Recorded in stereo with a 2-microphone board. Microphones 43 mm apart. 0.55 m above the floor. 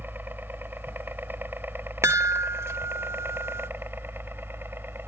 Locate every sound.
0.0 s a helicopter: 50° right (ahead or behind); by 5.1 s 55° right (ahead or behind)
2.0 s a chime: 80° right